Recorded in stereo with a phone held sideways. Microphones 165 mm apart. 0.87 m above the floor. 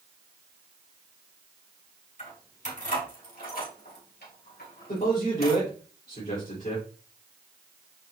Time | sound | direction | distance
2.2 | keys jangling | 45° left (ahead or behind) | 5 m
4.9 | a man speaking | 45° left (ahead or behind) | 3.5 m